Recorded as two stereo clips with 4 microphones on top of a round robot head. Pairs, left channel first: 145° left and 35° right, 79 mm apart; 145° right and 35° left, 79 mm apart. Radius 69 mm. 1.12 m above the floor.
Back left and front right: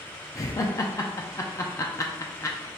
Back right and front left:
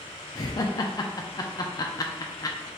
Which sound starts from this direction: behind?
Laughter, at 0.3 s.